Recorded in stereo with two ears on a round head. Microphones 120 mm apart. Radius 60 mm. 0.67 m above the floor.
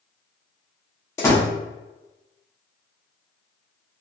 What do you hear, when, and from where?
1.2 s a door slam: 20° left (ahead or behind), 0.8 m